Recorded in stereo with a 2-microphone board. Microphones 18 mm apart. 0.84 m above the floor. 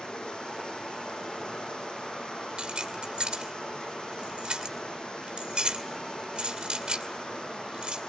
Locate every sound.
0.0 s running water: 85° left, 9.5 m
2.6 s keys jangling: 75° right (ahead or behind), 2.5 m